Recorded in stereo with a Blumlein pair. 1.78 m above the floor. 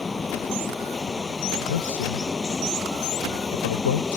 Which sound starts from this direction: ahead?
Running water, at 0.0 s.